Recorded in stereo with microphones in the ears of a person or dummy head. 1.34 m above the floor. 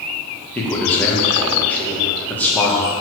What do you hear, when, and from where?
0.6 s a man speaking: 10° left (ahead or behind), 1.8 m